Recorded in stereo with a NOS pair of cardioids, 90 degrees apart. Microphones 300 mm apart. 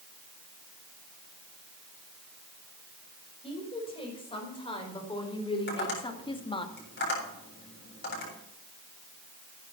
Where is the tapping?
35° left, 8 m.